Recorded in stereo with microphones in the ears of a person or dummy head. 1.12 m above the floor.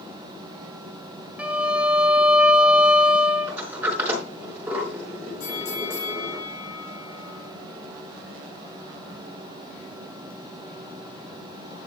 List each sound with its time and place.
1.4 s a violin: 5° right (ahead or behind), 1.2 m
3.5 s a sliding door: 10° right (ahead or behind), 4 m
5.4 s a bell: 60° left (ahead or behind), 5 m